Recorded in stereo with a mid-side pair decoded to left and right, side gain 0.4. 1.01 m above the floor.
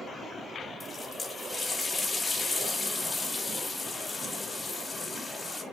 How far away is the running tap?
About 5 m.